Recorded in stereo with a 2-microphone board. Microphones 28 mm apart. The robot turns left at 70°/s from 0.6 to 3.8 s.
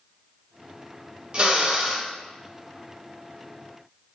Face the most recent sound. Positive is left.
turn(degrees=75)